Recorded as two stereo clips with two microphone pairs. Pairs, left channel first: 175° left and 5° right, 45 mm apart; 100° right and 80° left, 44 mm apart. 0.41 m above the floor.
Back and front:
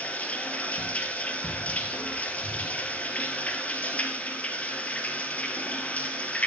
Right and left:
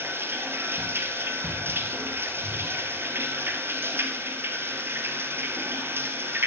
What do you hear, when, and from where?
0.0 s running water: 115° left, 1.6 m